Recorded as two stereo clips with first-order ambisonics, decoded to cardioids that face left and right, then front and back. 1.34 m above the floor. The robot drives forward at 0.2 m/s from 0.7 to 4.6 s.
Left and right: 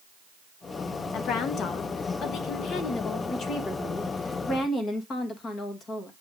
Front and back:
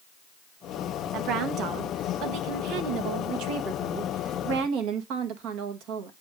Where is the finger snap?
No finger snap in this recording.